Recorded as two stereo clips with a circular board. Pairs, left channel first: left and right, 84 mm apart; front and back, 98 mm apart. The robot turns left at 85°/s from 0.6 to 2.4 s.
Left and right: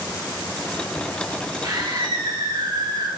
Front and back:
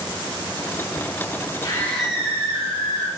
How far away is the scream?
About 3.5 m.